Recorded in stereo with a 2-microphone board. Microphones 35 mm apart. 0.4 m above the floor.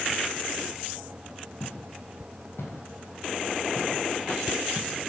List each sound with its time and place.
1.6 s footsteps: 75° left (ahead or behind), 8.5 m; by 4.9 s 85° left, 5.5 m